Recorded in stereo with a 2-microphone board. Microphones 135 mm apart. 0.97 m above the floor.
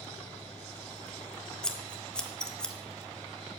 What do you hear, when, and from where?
1.6 s scissors: 5° left (ahead or behind), 0.9 m